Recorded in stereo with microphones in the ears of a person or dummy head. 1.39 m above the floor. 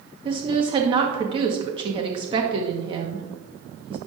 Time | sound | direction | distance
0.2 | a woman speaking | 25° right (ahead or behind) | 1.1 m